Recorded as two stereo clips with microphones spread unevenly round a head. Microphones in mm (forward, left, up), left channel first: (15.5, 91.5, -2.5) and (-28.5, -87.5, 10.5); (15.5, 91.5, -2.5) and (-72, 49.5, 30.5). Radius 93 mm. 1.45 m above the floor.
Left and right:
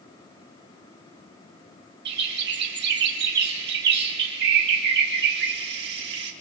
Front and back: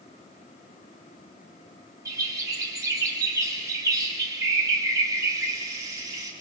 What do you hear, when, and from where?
2.0 s a bird: 105° right, 1.4 m